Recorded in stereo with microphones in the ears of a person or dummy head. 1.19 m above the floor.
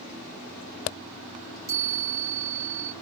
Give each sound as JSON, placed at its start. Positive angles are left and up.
{"t": 1.7, "sound": "a chime", "side_deg": -20, "distance_m": 0.8}